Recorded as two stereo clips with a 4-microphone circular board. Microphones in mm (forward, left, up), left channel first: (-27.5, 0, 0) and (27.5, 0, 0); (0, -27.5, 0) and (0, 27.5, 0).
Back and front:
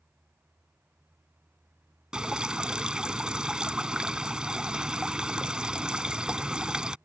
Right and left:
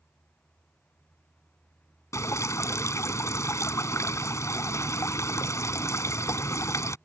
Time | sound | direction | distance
2.1 | dripping | 75° right | ?